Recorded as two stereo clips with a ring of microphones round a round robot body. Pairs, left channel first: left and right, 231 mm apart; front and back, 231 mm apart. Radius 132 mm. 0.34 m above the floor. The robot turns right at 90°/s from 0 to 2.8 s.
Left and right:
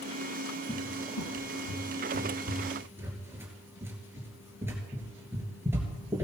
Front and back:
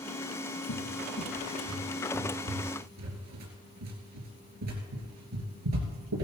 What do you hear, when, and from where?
0.7 s a cupboard door: straight ahead, 3 m; by 6.2 s 170° right, 3 m